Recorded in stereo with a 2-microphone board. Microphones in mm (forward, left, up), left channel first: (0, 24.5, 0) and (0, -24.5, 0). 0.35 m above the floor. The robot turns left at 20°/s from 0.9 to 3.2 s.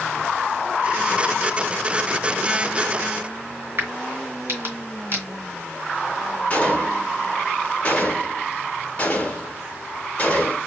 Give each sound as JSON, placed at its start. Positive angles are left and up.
{"t": 3.8, "sound": "a crack", "side_deg": -50, "distance_m": 2.0}
{"t": 6.5, "sound": "a gunshot", "side_deg": 30, "distance_m": 1.4}